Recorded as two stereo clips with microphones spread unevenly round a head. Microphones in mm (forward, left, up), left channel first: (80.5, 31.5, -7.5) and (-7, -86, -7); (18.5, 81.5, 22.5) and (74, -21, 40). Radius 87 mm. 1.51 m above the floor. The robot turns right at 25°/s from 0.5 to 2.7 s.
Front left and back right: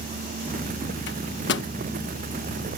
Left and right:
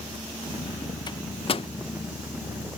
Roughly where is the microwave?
Ahead left.